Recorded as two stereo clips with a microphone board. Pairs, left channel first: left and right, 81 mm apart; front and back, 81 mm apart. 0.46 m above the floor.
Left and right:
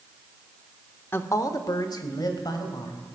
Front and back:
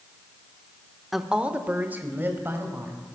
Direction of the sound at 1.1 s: 95° left.